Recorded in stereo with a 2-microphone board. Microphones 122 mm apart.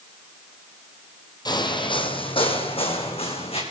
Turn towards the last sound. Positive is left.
turn(degrees=55)  # may be behind; listen again after turning